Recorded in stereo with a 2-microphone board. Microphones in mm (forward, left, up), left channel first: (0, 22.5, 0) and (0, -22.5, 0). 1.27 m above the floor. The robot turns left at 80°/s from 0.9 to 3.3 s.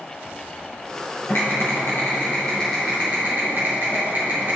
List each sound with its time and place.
1.3 s typing on a keyboard: 110° left, 3 m; by 4.6 s 50° right, 3 m